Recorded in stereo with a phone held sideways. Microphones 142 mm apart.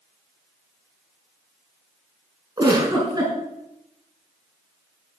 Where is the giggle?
30° right (ahead or behind), 5 m.